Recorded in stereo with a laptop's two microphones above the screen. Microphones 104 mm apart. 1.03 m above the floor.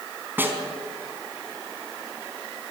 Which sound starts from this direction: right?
A snare drum, at 0.4 s.